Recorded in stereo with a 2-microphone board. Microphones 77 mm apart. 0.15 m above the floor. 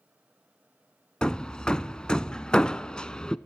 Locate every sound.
1.2 s hammering: 10° left (ahead or behind), 0.5 m